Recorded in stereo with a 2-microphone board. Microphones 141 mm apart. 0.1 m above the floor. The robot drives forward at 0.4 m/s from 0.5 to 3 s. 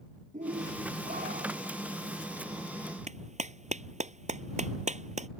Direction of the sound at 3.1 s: 60° right (ahead or behind).